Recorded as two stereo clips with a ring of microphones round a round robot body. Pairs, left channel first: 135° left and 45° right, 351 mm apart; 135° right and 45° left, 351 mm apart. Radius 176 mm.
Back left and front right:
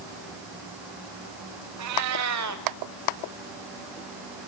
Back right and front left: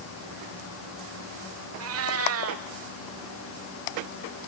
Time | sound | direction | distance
1.8 | a cat meowing | 5° right | 1.1 m